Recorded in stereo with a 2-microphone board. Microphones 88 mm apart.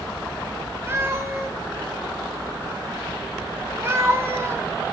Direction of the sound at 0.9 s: 30° right (ahead or behind).